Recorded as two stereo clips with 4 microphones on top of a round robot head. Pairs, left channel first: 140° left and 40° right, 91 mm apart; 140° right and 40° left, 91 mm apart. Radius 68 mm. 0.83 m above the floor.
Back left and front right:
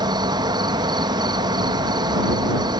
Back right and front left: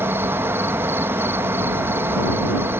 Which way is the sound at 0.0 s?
20° right.